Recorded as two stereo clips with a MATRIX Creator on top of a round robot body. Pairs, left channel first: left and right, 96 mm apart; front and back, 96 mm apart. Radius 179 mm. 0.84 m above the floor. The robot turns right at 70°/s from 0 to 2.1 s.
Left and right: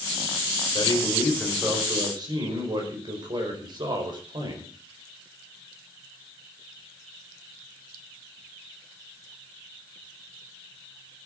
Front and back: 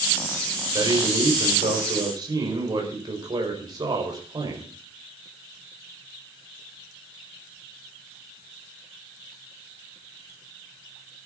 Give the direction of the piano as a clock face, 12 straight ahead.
No piano in this recording.